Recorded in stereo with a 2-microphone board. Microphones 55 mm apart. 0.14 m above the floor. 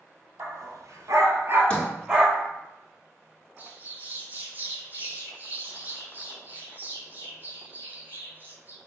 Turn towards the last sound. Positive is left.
turn(degrees=-35)  # may be behind; listen again after turning